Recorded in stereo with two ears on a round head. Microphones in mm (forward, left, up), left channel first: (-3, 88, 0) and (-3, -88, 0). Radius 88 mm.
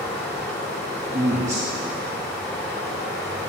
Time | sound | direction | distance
0.0 | running water | 5° left (ahead or behind) | 3 m
1.1 | a man speaking | 35° right (ahead or behind) | 1.0 m